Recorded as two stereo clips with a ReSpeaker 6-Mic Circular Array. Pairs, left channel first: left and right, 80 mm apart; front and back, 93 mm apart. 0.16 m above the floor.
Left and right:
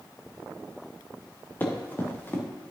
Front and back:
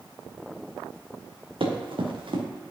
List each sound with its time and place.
1.6 s running footsteps: 155° left, 2 m